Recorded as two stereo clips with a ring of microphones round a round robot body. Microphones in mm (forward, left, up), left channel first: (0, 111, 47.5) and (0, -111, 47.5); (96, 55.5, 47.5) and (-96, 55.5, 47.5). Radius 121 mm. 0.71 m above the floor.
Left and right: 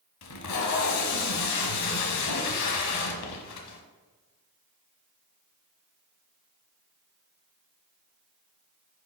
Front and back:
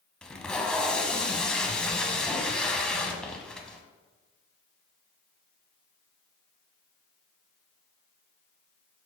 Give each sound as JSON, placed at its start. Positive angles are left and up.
{"t": 0.2, "sound": "tape being pulled", "azimuth_deg": 85, "distance_m": 1.0}